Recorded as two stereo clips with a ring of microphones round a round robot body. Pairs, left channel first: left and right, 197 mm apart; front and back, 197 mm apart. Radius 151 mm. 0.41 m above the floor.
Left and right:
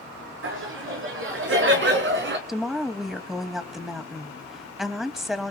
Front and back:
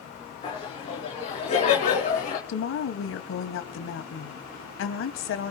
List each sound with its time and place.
0.4 s laughter: 70° right, 5.5 m; by 2.4 s 60° right, 4.5 m
2.5 s a woman speaking: straight ahead, 3 m